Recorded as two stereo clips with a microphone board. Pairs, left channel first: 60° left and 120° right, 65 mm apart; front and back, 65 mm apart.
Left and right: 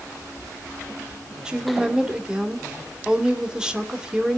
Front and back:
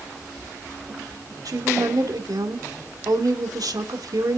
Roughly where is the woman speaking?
Behind.